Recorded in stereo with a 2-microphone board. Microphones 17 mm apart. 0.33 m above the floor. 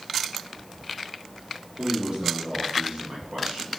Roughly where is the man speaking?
Right.